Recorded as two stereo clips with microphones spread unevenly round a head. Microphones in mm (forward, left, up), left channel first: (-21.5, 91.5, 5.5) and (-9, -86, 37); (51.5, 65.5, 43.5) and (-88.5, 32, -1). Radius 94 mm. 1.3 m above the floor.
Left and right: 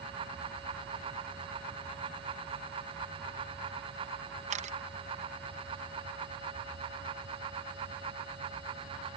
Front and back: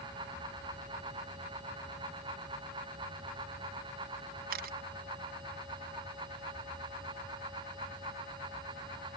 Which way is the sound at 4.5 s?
140° right.